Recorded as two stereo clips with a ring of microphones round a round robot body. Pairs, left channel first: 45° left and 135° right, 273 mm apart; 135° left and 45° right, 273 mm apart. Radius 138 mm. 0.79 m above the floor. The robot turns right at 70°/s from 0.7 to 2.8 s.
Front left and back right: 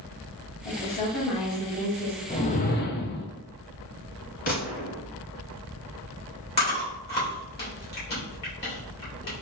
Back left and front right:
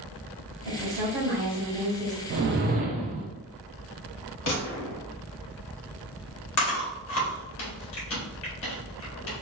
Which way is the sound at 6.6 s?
100° left.